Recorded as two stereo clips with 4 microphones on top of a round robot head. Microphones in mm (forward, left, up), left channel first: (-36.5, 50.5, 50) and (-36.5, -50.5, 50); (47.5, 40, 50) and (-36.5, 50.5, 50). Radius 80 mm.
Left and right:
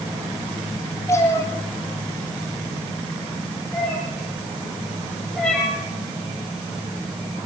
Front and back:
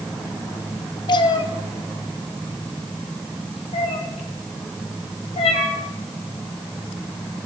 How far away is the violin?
No violin in this recording.